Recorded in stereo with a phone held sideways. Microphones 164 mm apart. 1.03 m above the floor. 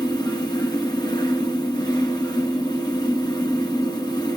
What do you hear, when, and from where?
0.0 s a fan: 25° left (ahead or behind), 1.4 m